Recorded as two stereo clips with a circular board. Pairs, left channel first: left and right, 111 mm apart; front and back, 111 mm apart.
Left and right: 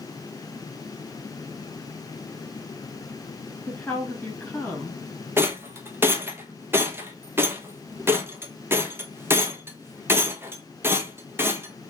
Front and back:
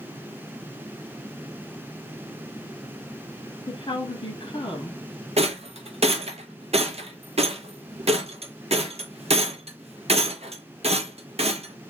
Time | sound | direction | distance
3.7 | a woman speaking | 15° left | 1.6 m
5.4 | a rattle | 160° right | 0.6 m